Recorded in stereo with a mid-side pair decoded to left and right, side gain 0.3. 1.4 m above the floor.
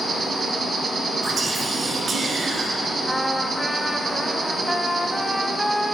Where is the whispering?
70° right, 1.8 m.